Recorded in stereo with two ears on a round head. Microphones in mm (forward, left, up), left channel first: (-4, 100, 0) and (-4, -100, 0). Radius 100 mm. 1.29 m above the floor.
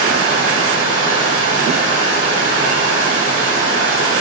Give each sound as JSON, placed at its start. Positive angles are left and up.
{"t": 0.0, "sound": "running water", "side_deg": -55, "distance_m": 3.0}